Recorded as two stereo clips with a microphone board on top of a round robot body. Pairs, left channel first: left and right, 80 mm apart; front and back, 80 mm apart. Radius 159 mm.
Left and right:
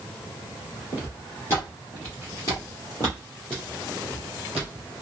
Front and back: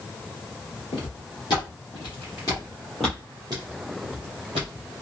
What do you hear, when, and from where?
0.9 s footsteps: 25° left, 1.4 m; by 4.9 s 170° right, 1.2 m